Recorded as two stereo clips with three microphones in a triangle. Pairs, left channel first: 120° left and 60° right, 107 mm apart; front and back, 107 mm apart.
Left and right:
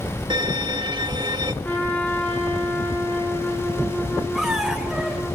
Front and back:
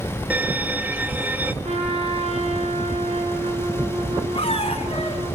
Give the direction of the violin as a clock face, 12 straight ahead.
4 o'clock.